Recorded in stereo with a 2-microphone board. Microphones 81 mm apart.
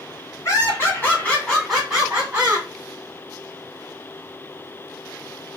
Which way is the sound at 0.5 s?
35° left (ahead or behind).